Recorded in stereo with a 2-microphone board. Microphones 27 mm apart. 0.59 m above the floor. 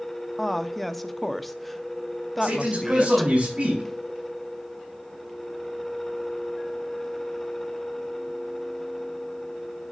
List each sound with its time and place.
0.4 s a woman speaking: 5° left (ahead or behind), 0.6 m
2.4 s a man speaking: 45° right (ahead or behind), 4.5 m